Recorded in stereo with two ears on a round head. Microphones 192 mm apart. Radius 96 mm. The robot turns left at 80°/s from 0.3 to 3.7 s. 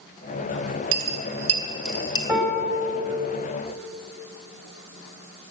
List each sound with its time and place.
0.9 s a dropped coin: 65° right (ahead or behind), 1.9 m; by 2.2 s 25° left (ahead or behind), 1.9 m
2.3 s a piano: straight behind, 3 m; by 3.0 s 125° left, 3 m